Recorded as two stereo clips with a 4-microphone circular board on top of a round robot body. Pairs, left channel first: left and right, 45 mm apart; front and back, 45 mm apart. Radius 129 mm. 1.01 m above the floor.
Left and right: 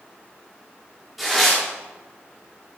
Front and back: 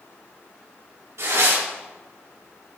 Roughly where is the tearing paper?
Behind.